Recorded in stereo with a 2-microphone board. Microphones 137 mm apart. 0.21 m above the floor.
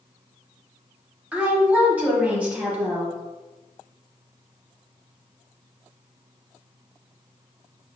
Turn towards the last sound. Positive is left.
turn(degrees=-10)  # may be behind; listen again after turning